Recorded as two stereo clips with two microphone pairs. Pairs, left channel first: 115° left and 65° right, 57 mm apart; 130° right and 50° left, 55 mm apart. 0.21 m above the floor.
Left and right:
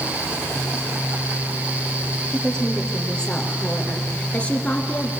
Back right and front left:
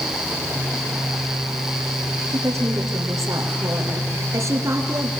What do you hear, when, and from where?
2.3 s a woman speaking: 35° left, 5.5 m; by 5.1 s 50° left, 3.5 m